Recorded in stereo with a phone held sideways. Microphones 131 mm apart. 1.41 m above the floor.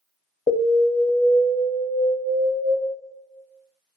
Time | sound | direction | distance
0.5 | an alarm | 80° left | 0.5 m